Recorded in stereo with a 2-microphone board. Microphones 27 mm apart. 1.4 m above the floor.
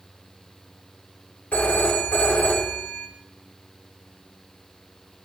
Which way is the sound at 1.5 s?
60° left (ahead or behind).